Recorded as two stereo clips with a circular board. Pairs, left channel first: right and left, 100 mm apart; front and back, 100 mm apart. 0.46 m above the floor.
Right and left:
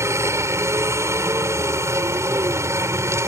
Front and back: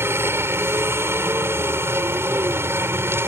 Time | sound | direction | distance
0.0 | a helicopter | 130° left | ?